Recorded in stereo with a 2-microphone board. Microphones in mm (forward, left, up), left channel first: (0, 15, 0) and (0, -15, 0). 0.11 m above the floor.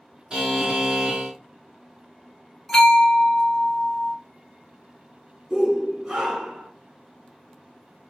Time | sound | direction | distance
0.3 | a buzzer | 30° right (ahead or behind) | 1.5 m
2.7 | a bell | 10° left (ahead or behind) | 1.7 m
5.5 | a shout | 20° right (ahead or behind) | 1.5 m